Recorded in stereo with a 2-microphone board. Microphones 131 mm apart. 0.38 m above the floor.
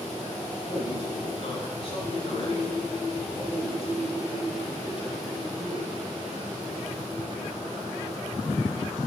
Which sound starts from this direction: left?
A man speaking, at 0.7 s.